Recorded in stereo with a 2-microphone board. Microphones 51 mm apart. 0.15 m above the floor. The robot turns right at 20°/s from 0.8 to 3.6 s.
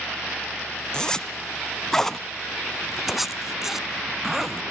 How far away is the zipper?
About 0.6 m.